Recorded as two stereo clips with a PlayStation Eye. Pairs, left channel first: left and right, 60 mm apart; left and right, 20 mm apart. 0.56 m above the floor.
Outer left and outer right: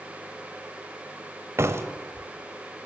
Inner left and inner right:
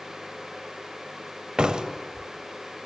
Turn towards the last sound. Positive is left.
turn(degrees=-45)  # may be behind; listen again after turning